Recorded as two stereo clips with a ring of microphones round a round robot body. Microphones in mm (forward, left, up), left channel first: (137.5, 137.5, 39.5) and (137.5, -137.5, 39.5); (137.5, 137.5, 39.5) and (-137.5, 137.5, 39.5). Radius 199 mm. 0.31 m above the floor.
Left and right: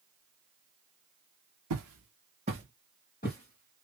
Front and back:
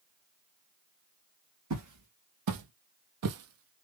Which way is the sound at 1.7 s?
130° right.